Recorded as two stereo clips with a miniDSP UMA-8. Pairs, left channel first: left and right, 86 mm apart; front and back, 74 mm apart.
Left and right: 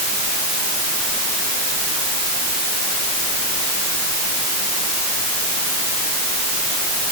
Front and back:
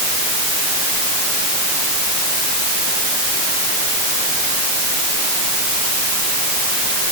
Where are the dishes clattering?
I don't hear dishes clattering.